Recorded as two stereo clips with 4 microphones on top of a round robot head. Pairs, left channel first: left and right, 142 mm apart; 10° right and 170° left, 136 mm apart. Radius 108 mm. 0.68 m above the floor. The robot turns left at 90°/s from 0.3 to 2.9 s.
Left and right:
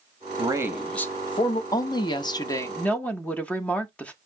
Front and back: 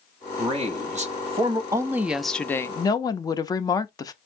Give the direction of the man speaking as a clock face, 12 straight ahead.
5 o'clock.